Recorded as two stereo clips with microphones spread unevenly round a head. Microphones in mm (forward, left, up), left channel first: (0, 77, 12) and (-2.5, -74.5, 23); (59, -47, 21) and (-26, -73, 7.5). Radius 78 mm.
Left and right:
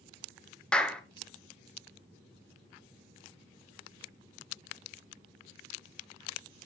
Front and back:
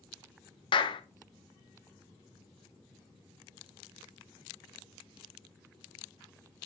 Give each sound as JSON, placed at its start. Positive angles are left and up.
{"t": 0.7, "sound": "a clap", "azimuth_deg": 10, "distance_m": 0.7}